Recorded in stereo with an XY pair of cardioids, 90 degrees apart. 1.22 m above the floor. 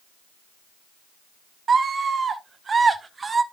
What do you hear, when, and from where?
1.7 s a scream: 50° right, 2 m; by 3.4 s 35° right, 1.3 m